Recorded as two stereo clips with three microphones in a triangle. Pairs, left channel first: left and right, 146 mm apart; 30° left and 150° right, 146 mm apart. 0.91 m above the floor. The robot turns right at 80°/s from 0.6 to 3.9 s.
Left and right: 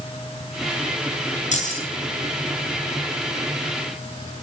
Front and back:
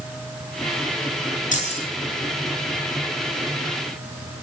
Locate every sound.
1.5 s keys jangling: 60° left, 9 m; by 1.8 s 85° left, 9 m